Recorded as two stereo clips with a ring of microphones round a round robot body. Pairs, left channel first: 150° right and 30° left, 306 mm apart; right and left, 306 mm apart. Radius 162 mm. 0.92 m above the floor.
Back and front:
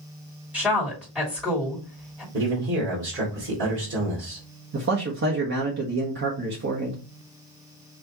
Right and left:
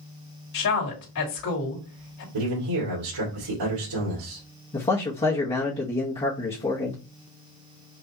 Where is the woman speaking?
55° right, 2.5 m.